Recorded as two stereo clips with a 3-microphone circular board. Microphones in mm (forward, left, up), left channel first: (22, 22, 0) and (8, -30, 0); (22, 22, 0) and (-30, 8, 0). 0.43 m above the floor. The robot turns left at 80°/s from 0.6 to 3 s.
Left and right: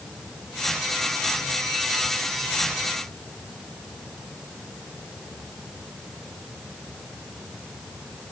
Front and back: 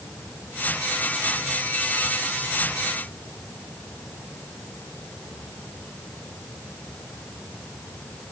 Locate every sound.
Only background noise.